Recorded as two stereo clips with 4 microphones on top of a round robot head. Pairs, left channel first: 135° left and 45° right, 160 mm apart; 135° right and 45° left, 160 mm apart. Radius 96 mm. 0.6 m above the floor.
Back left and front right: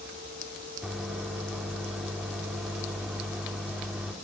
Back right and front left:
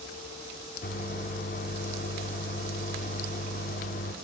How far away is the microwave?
About 1.6 m.